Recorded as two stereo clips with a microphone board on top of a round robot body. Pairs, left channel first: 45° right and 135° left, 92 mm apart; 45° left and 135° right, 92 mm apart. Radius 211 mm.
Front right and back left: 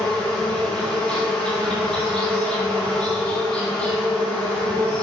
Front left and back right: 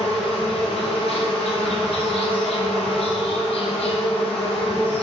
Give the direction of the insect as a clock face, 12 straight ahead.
11 o'clock.